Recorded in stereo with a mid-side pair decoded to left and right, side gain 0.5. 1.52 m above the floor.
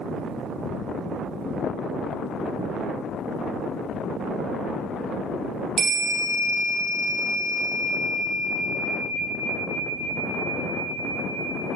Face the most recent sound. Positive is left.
turn(degrees=-50)